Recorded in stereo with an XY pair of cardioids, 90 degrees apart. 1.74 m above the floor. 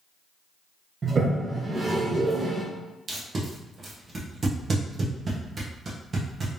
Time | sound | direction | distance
1.0 | a toilet flushing | 40° right | 0.8 m
3.1 | tape being pulled | 40° right | 1.3 m